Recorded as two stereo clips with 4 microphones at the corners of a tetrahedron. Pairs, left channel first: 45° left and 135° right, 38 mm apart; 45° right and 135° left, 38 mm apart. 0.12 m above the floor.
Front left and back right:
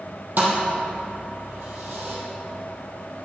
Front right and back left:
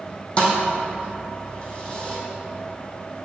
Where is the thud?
100° right, 2.5 m.